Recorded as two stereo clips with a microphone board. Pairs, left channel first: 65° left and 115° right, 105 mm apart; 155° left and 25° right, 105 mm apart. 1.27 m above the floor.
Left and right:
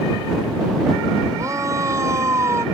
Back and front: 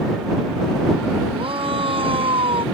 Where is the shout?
55° right; by 2.6 s 50° right.